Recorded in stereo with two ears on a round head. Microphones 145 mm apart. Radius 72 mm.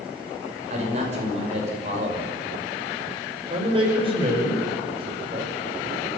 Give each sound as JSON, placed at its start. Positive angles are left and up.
{"t": 0.7, "sound": "a man speaking", "side_deg": -40, "distance_m": 5.5}
{"t": 3.5, "sound": "a man speaking", "side_deg": -35, "distance_m": 6.0}